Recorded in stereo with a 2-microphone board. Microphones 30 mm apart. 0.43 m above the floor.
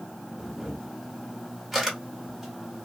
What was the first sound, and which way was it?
A camera shutter, 5° right (ahead or behind).